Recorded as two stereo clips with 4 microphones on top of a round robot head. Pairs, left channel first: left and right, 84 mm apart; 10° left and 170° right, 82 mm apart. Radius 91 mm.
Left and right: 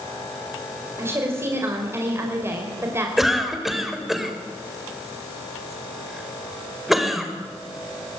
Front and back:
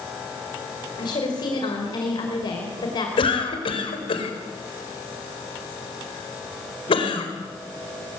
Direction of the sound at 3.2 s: 5° right.